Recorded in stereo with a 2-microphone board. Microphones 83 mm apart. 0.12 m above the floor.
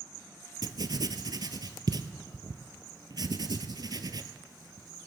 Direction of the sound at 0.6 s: 65° right (ahead or behind).